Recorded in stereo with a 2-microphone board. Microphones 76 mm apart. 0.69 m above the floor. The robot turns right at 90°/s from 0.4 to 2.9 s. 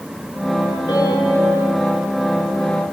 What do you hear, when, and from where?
0.9 s a piano: 70° left, 9 m; by 1.5 s 130° left, 9 m